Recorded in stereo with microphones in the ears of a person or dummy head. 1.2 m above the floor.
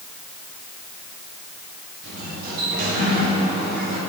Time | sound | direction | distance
2.0 | a sliding door | 50° right (ahead or behind) | 2.5 m